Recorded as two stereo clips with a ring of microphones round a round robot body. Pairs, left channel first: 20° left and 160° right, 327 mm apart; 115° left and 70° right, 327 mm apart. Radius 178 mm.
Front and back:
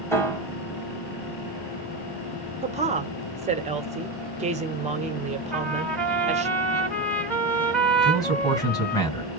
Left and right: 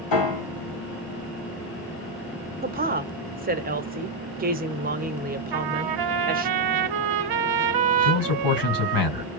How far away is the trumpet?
About 1.0 m.